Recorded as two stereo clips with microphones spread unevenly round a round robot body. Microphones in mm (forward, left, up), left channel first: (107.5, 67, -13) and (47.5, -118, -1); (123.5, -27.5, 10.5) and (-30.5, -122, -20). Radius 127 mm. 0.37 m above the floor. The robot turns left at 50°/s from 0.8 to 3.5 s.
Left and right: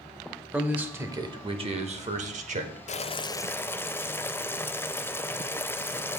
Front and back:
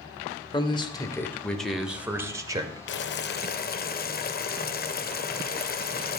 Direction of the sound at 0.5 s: 30° right.